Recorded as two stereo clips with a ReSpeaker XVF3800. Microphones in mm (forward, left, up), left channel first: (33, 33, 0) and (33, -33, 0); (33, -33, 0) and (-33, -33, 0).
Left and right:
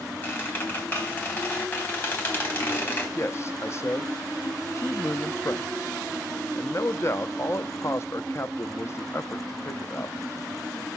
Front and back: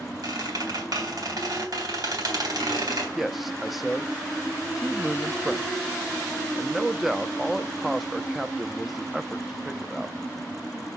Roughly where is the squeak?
Behind left.